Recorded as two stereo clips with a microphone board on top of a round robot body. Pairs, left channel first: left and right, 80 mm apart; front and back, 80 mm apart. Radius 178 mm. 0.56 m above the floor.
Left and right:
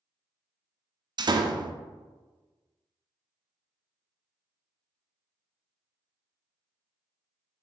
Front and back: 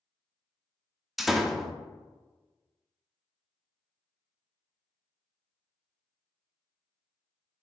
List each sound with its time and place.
1.2 s a door slam: 90° right, 0.5 m